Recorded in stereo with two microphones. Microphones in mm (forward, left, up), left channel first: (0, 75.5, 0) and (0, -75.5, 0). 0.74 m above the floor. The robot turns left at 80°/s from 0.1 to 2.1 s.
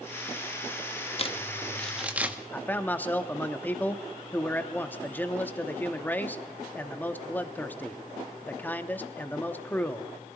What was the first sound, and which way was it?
Crumpling, 40° left (ahead or behind).